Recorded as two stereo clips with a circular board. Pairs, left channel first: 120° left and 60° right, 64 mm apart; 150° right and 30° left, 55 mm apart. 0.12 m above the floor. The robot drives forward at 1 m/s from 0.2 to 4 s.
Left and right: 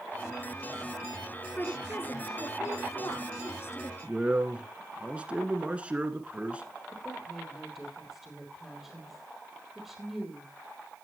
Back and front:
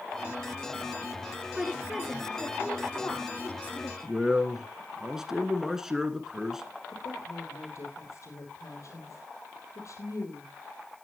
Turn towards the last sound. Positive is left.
turn(degrees=-150)